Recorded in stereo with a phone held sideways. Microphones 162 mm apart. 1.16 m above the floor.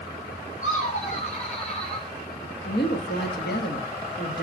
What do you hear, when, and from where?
0.6 s laughter: 50° left (ahead or behind), 3.5 m; by 2.1 s 35° left (ahead or behind), 4.5 m
2.6 s a woman speaking: 80° left, 1.7 m